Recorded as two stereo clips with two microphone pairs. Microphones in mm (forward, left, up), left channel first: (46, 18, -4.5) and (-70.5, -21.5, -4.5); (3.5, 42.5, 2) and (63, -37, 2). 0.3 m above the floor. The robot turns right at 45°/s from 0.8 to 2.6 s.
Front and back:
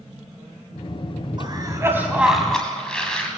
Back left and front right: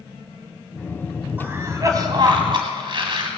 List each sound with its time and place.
1.4 s a cough: 120° right, 1.8 m; by 3.3 s 65° right, 1.8 m